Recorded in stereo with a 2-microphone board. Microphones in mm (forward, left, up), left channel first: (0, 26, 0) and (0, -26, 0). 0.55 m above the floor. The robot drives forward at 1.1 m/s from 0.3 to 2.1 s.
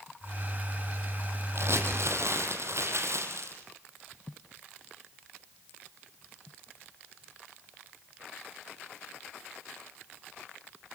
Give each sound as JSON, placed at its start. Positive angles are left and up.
{"t": 1.6, "sound": "crumpling", "side_deg": -55, "distance_m": 6.5}